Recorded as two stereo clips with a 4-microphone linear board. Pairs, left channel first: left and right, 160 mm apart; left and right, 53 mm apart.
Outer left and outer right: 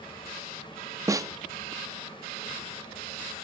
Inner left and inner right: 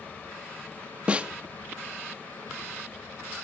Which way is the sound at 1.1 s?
20° right (ahead or behind).